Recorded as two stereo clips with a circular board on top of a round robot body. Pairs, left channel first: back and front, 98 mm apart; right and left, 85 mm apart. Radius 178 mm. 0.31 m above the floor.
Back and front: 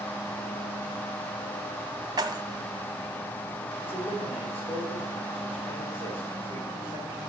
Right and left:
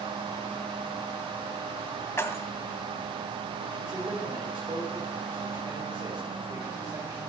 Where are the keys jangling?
40° right, 1.1 m.